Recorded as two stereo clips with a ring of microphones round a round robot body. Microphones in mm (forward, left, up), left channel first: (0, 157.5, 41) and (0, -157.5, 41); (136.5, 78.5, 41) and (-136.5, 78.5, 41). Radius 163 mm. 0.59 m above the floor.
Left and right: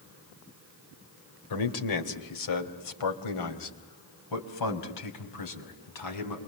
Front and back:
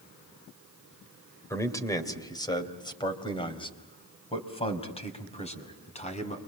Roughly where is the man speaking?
Left.